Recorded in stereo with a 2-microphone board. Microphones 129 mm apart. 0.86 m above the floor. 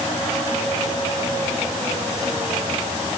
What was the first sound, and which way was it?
Only background noise.